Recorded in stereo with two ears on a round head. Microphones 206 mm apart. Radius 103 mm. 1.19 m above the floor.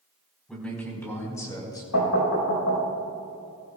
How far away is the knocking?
About 4.5 m.